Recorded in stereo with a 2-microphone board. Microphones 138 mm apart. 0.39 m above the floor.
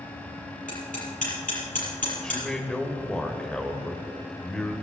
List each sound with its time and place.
0.7 s hammering: 70° left (ahead or behind), 7 m
2.2 s a man speaking: 5° left (ahead or behind), 1.8 m